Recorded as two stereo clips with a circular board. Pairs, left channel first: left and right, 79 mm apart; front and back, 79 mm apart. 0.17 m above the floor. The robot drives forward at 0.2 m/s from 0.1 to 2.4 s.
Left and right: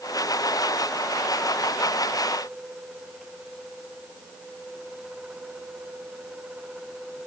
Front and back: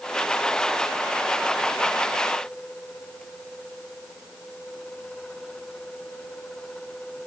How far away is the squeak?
I don't hear a squeak.